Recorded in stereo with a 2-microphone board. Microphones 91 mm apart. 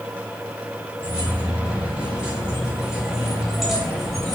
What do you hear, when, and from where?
1.0 s keys jangling: 20° right (ahead or behind), 5 m; by 4.3 s 5° left (ahead or behind), 3 m